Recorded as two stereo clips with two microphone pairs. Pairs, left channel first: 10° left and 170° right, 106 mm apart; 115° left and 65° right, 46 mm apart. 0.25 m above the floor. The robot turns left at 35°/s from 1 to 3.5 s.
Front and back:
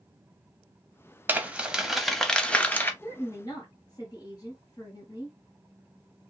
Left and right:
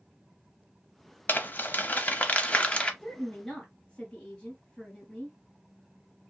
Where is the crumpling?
125° left, 0.6 m; by 2.9 s 65° left, 0.6 m.